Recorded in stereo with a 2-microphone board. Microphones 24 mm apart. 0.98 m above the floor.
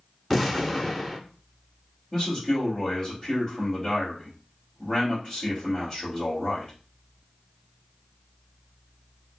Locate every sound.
0.3 s an explosion: centre (ahead or behind), 0.7 m
2.1 s a man speaking: 5° left (ahead or behind), 2.0 m